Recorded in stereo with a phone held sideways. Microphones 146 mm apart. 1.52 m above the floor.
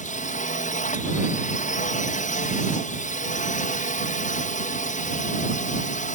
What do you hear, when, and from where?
0.0 s a drone: 55° left (ahead or behind)